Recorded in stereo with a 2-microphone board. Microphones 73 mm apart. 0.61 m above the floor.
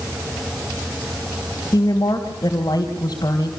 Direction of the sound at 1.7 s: 50° left (ahead or behind).